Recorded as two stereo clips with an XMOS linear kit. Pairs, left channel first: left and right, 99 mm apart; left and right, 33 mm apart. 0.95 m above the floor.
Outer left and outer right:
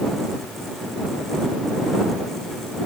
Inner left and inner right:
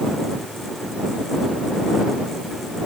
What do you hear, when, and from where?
Only background noise.